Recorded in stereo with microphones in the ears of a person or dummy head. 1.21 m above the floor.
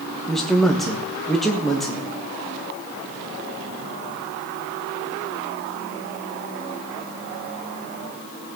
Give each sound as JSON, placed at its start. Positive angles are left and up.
{"t": 0.3, "sound": "a man speaking", "side_deg": 0, "distance_m": 1.4}